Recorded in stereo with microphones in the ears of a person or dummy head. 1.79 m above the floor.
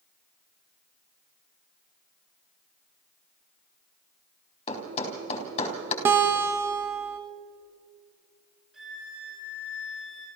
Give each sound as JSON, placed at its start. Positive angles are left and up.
{"t": 4.7, "sound": "a thud", "side_deg": 35, "distance_m": 3.5}
{"t": 6.0, "sound": "a guitar", "side_deg": -15, "distance_m": 1.2}
{"t": 8.7, "sound": "a violin", "side_deg": -5, "distance_m": 7.5}